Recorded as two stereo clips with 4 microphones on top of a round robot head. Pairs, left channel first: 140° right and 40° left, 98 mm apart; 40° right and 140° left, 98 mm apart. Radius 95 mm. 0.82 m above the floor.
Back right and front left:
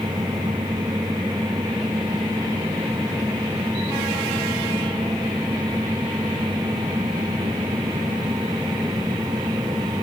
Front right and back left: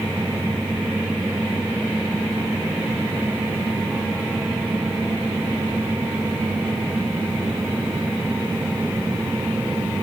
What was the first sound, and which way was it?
Only background noise.